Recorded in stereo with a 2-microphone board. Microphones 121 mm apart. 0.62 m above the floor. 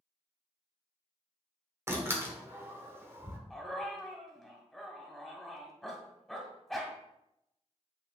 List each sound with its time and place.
1.9 s a door slam: 20° right (ahead or behind), 1.3 m
3.5 s a dog barking: centre (ahead or behind), 1.5 m